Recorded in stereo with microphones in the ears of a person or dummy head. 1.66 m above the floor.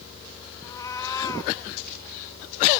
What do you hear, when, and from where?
0.6 s a cat meowing: 15° left (ahead or behind), 2 m